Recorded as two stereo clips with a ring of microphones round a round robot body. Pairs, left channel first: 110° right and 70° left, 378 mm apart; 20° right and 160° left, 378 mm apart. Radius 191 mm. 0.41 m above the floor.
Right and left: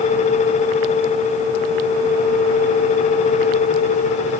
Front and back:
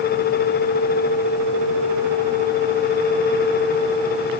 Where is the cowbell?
No cowbell in this recording.